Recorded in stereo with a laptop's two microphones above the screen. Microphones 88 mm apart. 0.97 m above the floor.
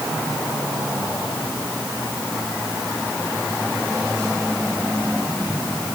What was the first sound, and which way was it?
Only background noise.